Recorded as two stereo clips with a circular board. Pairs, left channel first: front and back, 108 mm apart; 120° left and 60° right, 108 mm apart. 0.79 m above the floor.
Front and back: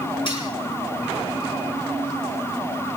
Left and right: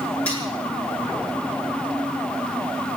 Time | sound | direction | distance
0.3 | cutlery clinking | 45° left | 8 m